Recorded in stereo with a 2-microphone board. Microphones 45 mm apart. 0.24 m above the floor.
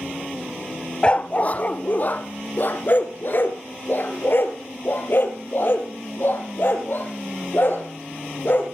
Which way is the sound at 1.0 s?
25° left (ahead or behind).